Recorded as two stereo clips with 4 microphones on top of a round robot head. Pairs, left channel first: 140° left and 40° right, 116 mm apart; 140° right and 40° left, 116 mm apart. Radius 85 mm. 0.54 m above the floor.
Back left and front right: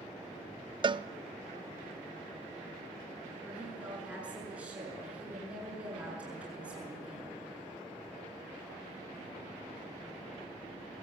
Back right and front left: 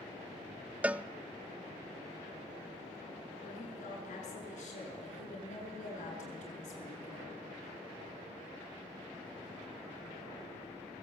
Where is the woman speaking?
120° right, 7.5 m.